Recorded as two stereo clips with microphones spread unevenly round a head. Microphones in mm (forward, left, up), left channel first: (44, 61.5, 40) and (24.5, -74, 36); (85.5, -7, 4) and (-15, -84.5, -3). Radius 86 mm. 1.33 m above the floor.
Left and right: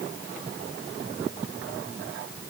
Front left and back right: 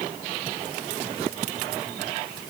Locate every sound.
Only background noise.